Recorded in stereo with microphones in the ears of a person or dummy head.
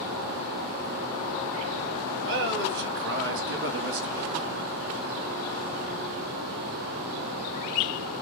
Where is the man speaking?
55° right (ahead or behind), 1.0 m.